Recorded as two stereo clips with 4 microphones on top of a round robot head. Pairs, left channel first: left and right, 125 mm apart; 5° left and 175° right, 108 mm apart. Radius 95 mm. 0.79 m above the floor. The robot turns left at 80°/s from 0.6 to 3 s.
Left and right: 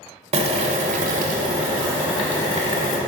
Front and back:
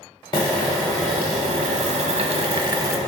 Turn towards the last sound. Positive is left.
turn(degrees=115)